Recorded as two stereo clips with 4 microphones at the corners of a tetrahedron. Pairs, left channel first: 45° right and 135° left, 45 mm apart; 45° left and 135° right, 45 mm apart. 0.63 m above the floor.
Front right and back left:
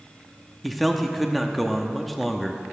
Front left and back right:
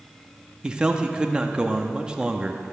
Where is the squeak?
No squeak in this recording.